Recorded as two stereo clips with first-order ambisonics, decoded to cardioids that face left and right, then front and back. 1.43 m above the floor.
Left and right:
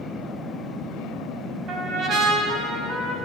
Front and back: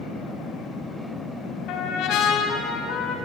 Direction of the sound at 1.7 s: 35° right.